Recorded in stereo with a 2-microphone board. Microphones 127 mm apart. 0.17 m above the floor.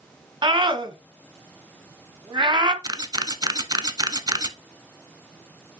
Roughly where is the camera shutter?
Right.